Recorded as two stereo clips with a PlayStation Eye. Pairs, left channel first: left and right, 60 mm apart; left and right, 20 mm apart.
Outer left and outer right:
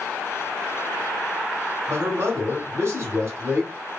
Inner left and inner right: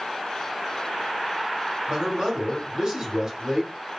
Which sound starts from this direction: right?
A man speaking, at 1.9 s.